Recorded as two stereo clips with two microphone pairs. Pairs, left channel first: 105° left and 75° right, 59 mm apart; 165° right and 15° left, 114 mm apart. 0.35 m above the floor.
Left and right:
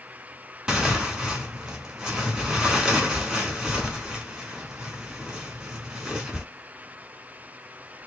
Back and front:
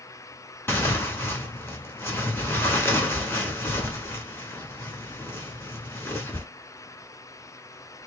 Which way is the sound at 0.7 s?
145° right.